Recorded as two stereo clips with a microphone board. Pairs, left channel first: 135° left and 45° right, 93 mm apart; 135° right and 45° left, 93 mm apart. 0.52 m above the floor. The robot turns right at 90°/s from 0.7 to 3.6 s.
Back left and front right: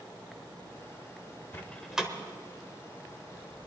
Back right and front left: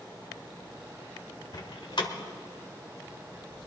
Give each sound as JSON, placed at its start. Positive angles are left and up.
{"t": 1.5, "sound": "a door slam", "azimuth_deg": -170, "distance_m": 1.3}